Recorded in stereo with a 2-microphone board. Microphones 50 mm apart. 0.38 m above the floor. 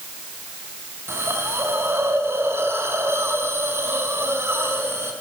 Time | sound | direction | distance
1.1 | a hiss | 55° right (ahead or behind) | 3.5 m